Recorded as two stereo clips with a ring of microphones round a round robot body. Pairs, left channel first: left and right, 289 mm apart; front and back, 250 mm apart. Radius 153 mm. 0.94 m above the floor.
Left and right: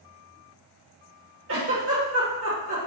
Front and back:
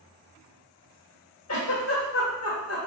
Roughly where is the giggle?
Ahead right.